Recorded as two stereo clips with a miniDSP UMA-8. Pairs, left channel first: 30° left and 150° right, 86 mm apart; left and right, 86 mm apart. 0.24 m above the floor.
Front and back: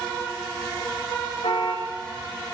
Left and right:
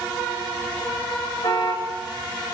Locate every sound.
1.4 s a car horn: 50° left, 8 m